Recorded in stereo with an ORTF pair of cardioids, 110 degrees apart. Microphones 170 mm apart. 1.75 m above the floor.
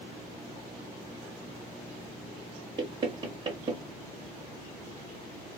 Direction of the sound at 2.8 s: 30° right.